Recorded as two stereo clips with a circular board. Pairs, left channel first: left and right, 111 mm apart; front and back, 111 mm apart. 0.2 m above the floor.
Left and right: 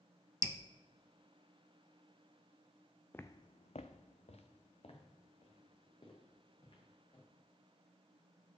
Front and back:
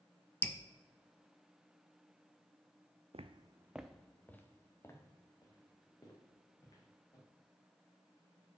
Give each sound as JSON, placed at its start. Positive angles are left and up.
{"t": 0.4, "sound": "dripping", "azimuth_deg": -55, "distance_m": 0.6}
{"t": 3.1, "sound": "footsteps", "azimuth_deg": 160, "distance_m": 0.5}